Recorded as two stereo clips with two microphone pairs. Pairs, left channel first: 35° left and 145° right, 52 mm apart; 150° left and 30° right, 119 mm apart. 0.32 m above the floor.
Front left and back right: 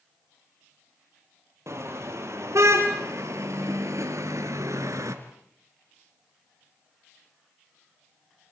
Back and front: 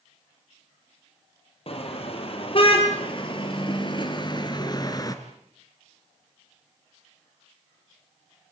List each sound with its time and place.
1.7 s a car horn: 170° right, 5 m; by 5.2 s 150° right, 2.5 m